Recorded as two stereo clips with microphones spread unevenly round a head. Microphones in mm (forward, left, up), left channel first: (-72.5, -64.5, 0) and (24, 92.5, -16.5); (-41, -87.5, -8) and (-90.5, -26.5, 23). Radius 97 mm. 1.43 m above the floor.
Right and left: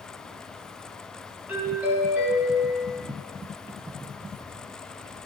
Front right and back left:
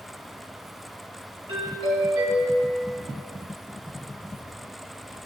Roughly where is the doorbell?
Behind left.